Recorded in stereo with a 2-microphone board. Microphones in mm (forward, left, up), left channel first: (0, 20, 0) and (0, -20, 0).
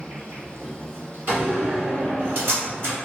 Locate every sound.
0.0 s an insect: 75° right (ahead or behind), 1.4 m
1.3 s a door slam: 50° right (ahead or behind), 1.7 m